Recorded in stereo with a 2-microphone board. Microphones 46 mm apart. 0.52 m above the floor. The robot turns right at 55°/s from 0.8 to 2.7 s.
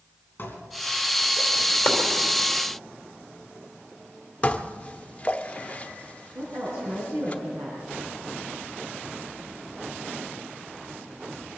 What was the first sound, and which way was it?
Dishes clattering, 50° left (ahead or behind).